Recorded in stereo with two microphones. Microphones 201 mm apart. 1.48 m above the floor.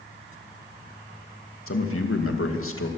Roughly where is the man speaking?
Left.